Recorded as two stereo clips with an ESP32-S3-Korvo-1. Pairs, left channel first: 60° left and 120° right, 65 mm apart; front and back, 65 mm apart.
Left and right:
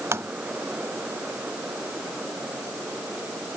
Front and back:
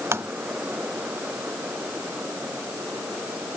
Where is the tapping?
150° right.